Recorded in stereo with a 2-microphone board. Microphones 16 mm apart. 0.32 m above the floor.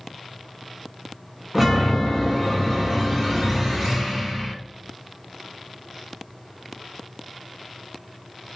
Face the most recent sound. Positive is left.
turn(degrees=-15)  # may be behind; listen again after turning